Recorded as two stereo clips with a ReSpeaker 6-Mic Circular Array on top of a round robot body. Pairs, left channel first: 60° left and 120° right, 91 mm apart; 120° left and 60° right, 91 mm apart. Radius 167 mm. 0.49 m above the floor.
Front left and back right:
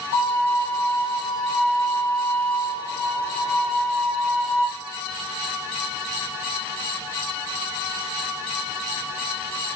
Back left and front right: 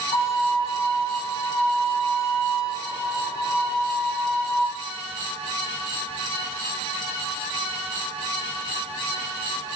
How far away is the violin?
About 4 m.